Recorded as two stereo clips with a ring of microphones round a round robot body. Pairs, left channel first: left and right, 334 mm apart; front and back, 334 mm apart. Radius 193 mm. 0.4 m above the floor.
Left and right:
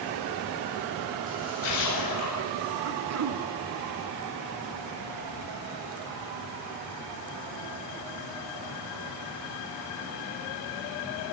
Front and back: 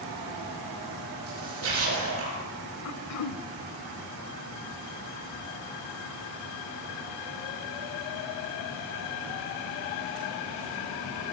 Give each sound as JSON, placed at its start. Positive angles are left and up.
{"t": 1.3, "sound": "a splash", "azimuth_deg": 140, "distance_m": 9.0}
{"t": 2.9, "sound": "throat clearing", "azimuth_deg": -45, "distance_m": 0.6}